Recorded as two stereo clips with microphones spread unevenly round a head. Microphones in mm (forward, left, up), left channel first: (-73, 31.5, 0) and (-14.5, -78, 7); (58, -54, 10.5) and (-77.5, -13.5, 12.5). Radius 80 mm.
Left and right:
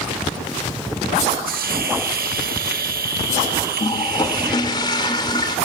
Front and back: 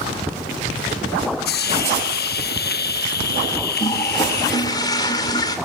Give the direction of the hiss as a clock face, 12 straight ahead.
1 o'clock.